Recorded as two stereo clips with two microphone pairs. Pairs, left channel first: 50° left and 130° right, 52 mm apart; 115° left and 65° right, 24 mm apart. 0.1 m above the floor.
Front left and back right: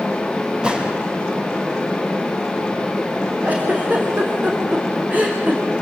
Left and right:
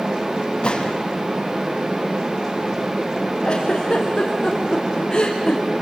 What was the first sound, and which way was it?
A gunshot, 160° left.